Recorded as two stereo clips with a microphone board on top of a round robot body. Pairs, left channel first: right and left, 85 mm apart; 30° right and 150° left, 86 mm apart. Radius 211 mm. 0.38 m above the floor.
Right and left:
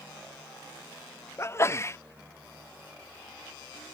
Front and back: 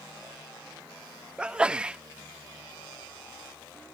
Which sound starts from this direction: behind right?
A sneeze, at 1.4 s.